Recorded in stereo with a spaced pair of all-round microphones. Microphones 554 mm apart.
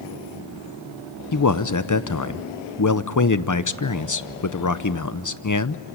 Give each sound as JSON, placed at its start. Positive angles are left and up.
{"t": 1.3, "sound": "a man speaking", "side_deg": 35, "distance_m": 0.7}